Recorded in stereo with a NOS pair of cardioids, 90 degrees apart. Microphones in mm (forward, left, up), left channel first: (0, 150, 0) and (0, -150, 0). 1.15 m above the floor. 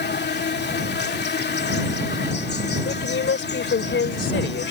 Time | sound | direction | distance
0.0 | an insect | 35° left | ?
2.9 | a woman speaking | 40° left | ?